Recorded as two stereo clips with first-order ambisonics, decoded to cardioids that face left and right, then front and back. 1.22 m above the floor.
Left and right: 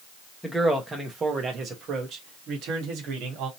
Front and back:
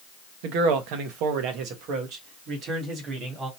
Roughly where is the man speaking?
Behind.